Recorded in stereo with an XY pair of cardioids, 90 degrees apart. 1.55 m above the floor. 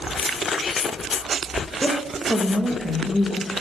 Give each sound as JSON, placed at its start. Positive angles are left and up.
{"t": 1.8, "sound": "a woman speaking", "azimuth_deg": -10, "distance_m": 2.5}